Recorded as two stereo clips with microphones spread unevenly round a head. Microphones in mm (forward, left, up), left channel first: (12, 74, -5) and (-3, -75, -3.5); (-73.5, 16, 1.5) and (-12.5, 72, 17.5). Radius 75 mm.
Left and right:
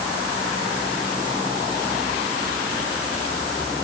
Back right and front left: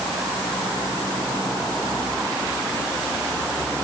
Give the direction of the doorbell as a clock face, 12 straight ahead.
I don't hear a doorbell.